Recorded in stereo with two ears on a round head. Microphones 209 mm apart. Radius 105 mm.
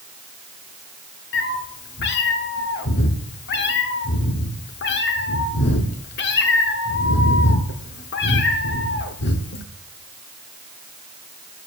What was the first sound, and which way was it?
A cat meowing, 50° left (ahead or behind).